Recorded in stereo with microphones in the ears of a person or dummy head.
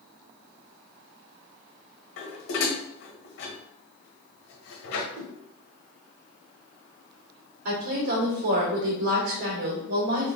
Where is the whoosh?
65° right (ahead or behind), 1.2 m.